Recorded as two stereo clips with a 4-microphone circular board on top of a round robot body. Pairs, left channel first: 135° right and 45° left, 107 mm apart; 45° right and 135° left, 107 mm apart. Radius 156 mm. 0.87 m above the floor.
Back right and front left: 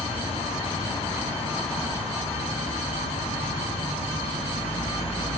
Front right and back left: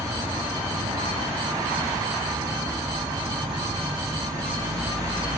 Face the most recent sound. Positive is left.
turn(degrees=-170)